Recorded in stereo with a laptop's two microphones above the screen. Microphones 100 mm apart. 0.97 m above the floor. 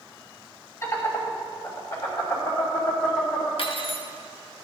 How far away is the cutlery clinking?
About 0.9 m.